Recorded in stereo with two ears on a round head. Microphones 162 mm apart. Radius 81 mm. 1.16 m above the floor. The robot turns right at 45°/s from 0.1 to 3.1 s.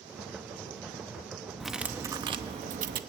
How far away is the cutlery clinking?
About 0.8 m.